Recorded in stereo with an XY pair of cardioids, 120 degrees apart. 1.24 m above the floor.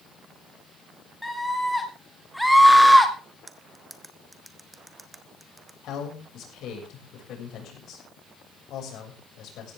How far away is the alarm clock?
I don't hear an alarm clock.